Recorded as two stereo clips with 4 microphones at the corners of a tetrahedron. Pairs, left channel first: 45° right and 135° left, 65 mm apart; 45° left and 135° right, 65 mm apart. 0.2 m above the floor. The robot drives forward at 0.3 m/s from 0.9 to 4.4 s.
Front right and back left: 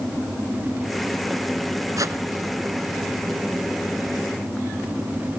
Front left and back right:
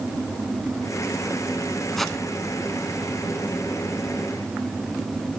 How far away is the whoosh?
About 0.9 m.